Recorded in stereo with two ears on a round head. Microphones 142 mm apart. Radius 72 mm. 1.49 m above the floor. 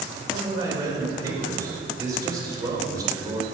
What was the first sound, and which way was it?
A man speaking, 20° right (ahead or behind).